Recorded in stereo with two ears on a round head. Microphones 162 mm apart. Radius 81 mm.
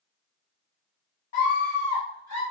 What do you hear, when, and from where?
1.3 s a scream: 25° left (ahead or behind), 1.5 m; by 2.4 s 20° left (ahead or behind), 2 m